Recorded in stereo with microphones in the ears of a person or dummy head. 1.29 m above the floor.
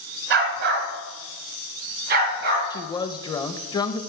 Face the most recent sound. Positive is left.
turn(degrees=25)  # may be behind; listen again after turning